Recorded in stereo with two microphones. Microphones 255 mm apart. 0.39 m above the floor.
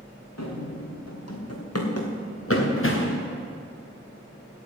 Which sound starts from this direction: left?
Running footsteps, at 0.4 s.